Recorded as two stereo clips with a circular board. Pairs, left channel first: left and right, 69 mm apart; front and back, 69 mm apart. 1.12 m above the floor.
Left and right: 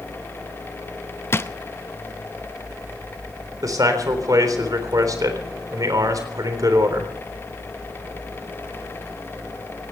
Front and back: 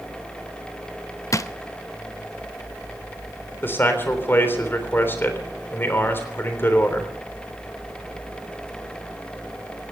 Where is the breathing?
I don't hear breathing.